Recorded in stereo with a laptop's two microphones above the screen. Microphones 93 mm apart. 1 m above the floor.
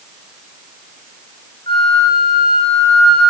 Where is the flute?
70° left (ahead or behind), 4 m.